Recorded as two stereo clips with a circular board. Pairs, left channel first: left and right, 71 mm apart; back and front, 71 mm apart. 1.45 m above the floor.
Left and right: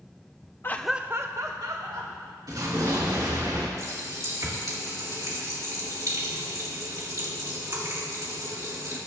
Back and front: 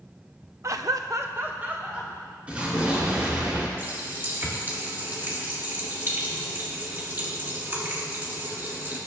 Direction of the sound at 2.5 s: 70° right.